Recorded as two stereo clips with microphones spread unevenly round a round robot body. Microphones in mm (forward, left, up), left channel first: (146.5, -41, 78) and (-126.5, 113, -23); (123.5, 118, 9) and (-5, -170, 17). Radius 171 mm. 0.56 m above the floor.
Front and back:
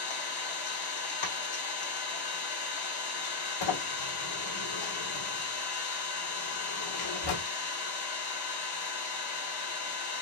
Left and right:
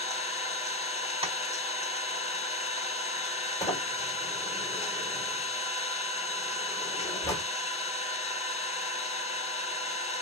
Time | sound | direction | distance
0.0 | an engine running | 5° right | 1.6 m
1.2 | tapping | 40° right | 1.8 m
3.6 | a sliding door | 15° right | 2 m